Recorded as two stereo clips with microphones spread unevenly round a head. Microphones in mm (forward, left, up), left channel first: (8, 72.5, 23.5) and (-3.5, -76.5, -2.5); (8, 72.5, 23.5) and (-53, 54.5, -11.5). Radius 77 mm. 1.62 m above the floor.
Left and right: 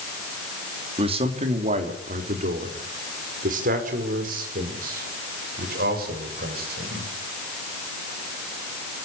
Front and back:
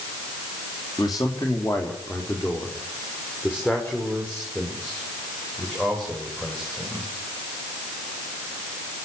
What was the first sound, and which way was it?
A man speaking, 40° right.